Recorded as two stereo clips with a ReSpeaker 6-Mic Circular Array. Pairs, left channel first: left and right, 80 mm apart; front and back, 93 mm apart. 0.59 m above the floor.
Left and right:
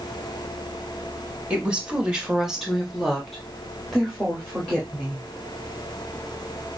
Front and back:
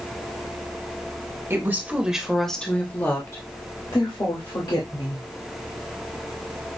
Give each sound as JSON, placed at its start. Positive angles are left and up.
{"t": 1.5, "sound": "a woman speaking", "azimuth_deg": -155, "distance_m": 1.1}